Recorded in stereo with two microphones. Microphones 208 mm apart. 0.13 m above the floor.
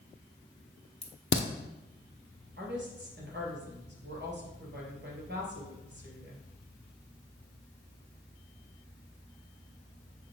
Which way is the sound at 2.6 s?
55° right (ahead or behind).